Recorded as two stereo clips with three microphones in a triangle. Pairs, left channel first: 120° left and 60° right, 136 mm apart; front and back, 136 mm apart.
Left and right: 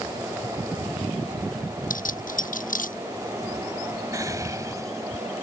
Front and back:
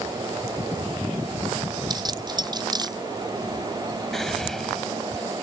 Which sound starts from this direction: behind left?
Keys jangling, at 1.9 s.